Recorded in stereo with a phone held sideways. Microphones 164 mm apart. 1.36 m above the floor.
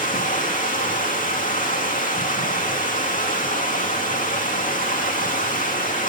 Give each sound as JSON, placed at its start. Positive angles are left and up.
{"t": 0.0, "sound": "running water", "side_deg": 50, "distance_m": 2.5}